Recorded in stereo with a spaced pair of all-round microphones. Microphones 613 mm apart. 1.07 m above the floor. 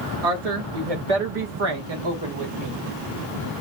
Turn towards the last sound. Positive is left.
turn(degrees=-25)  # may be behind; listen again after turning